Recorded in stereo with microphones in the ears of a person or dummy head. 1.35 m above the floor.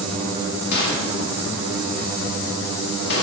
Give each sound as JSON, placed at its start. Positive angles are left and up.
{"t": 0.7, "sound": "a gunshot", "side_deg": 60, "distance_m": 1.5}